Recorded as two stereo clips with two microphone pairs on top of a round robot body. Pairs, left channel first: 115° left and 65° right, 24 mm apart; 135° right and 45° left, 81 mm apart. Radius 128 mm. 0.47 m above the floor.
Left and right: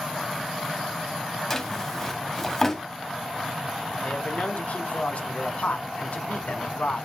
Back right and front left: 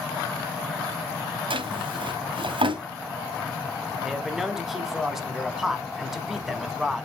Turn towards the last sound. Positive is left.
turn(degrees=130)